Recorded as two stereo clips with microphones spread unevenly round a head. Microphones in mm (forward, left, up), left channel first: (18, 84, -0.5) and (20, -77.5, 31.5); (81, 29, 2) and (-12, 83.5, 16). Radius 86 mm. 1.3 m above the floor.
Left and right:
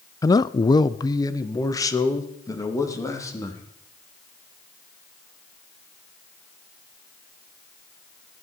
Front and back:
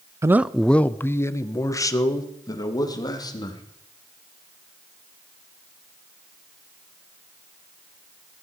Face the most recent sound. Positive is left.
turn(degrees=20)